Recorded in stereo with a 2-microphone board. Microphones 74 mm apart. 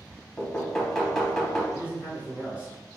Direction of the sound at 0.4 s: 5° left (ahead or behind).